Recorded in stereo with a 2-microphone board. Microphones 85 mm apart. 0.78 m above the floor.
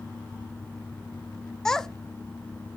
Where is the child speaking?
5° left (ahead or behind), 0.5 m.